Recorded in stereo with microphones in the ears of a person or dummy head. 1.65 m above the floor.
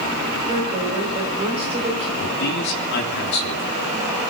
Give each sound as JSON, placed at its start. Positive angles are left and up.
{"t": 0.5, "sound": "a woman speaking", "side_deg": -30, "distance_m": 8.0}
{"t": 2.2, "sound": "a man speaking", "side_deg": 55, "distance_m": 3.0}